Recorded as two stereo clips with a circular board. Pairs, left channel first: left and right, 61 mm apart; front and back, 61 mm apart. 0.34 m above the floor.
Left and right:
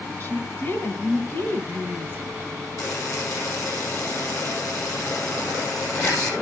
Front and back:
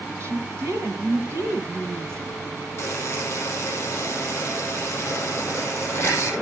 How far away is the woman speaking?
About 3 m.